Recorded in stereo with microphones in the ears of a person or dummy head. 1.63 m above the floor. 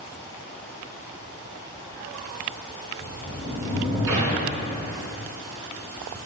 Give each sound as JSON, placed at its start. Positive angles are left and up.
{"t": 3.0, "sound": "a sliding door", "side_deg": -20, "distance_m": 4.0}